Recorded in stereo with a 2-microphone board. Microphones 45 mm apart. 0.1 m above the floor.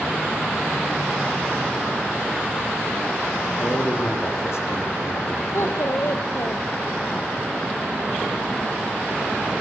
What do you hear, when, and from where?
3.6 s a man speaking: 65° left (ahead or behind), 5.5 m
5.5 s a child speaking: 65° left (ahead or behind), 2.0 m